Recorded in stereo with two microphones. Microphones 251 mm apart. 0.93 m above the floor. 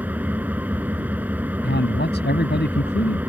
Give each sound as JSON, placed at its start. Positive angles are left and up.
{"t": 0.0, "sound": "an engine running", "side_deg": -5}
{"t": 1.6, "sound": "a man speaking", "side_deg": 40}